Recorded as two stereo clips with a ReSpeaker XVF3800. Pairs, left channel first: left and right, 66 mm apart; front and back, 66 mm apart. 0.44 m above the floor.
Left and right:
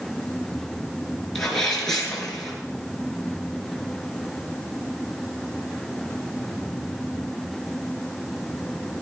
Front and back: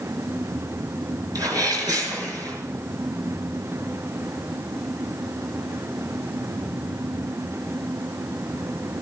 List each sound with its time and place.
1.4 s a sneeze: 175° left, 6.5 m